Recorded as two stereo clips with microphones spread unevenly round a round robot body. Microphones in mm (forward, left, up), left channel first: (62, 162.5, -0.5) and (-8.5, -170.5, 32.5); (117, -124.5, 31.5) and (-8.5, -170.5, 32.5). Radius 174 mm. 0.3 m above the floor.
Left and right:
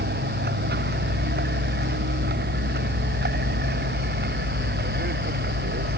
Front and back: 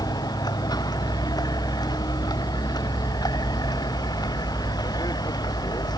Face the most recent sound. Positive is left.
turn(degrees=-40)